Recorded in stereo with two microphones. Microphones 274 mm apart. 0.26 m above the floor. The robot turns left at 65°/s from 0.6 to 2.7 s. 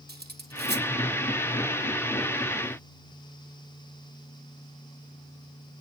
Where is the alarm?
I don't hear an alarm.